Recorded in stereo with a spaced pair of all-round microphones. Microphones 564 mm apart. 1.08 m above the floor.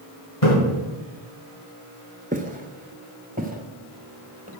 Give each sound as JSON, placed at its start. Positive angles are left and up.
{"t": 0.4, "sound": "a splash", "side_deg": 80, "distance_m": 5.0}
{"t": 2.3, "sound": "footsteps", "side_deg": -15, "distance_m": 1.0}